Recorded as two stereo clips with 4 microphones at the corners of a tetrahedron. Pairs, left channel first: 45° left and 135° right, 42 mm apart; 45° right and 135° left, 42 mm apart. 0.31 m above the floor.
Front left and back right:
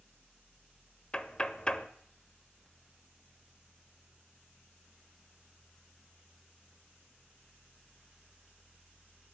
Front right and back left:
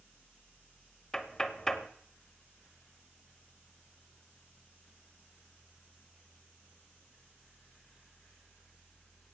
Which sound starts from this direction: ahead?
Knocking, at 1.1 s.